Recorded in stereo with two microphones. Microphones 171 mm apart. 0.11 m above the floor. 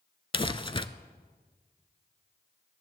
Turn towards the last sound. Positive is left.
turn(degrees=30)  # may be behind; listen again after turning